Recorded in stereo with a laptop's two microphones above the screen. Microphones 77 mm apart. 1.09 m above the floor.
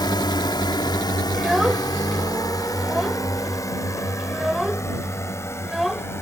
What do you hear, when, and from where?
0.0 s a drone: 70° left (ahead or behind); by 6.2 s 35° left (ahead or behind)
1.3 s a child speaking: centre (ahead or behind)